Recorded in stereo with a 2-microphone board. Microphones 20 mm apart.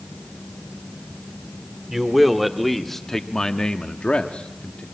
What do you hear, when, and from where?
1.9 s a man speaking: 5° right (ahead or behind), 2 m; by 4.8 s 75° left (ahead or behind), 1.5 m